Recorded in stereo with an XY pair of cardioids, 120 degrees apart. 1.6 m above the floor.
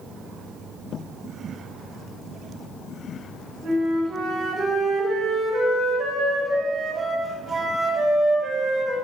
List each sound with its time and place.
3.6 s a flute: 30° right, 3.5 m